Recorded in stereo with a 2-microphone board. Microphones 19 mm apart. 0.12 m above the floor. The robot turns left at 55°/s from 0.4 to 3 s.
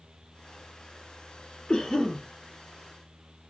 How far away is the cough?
About 1.5 m.